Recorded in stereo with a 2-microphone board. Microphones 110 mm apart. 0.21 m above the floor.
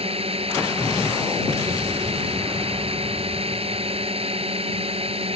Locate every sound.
0.0 s a drone: 65° right (ahead or behind)